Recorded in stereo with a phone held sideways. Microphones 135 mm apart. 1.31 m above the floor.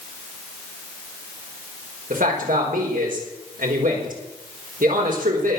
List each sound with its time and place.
2.1 s a man speaking: 85° right, 5.5 m